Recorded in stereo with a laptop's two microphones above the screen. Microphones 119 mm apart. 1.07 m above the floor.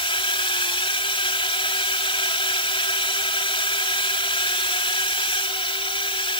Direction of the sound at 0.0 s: 50° left (ahead or behind).